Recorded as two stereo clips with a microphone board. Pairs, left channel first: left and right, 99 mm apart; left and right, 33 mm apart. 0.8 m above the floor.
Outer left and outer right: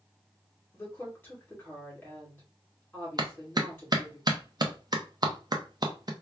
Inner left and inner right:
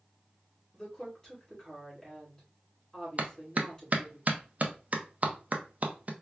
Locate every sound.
0.7 s a woman speaking: 20° left (ahead or behind), 2.5 m
3.2 s a clap: 45° right (ahead or behind), 0.6 m